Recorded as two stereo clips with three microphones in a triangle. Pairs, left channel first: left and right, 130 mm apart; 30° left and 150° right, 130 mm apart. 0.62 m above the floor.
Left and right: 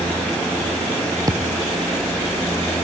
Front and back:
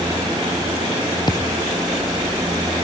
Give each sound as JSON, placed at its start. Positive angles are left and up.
{"t": 1.3, "sound": "a thud", "azimuth_deg": -30}